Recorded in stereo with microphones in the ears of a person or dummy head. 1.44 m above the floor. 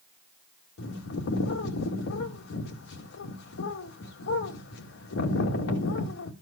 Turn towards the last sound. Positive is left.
turn(degrees=70)  # may be behind; listen again after turning